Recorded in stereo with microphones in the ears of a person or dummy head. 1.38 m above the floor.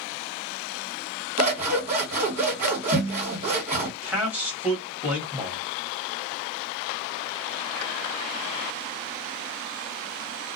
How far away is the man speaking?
About 1.1 m.